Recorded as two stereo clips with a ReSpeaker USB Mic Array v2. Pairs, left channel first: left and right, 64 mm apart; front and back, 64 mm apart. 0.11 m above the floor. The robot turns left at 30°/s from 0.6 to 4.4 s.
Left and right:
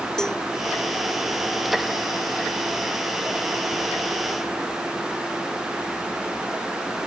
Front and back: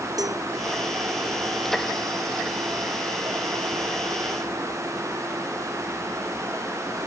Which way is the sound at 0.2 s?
170° left.